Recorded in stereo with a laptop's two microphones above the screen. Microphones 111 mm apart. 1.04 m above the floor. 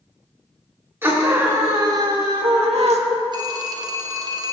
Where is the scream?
20° right (ahead or behind), 3 m; by 3.0 s 75° right (ahead or behind), 1.4 m.